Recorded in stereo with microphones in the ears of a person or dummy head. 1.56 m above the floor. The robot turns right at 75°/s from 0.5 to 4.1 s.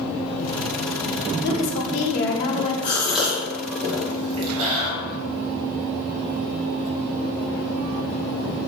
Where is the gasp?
20° left (ahead or behind), 2.5 m; by 4.9 s 75° right (ahead or behind), 2.5 m.